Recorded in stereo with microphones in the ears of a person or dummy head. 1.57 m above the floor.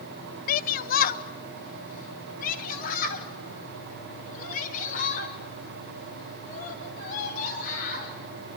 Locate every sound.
0.5 s a shout: 60° left (ahead or behind), 1.0 m; by 8.1 s 55° left (ahead or behind), 11.5 m